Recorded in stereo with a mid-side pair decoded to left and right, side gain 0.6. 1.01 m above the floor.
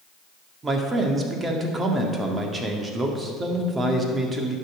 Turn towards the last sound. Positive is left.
turn(degrees=-25)